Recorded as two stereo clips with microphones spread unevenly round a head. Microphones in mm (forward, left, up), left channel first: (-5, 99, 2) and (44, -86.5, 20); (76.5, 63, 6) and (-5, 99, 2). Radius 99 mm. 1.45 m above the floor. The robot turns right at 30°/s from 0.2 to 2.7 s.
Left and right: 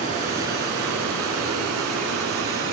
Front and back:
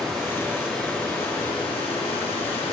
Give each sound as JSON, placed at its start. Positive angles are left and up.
{"t": 0.0, "sound": "running water", "azimuth_deg": -130, "distance_m": 2.0}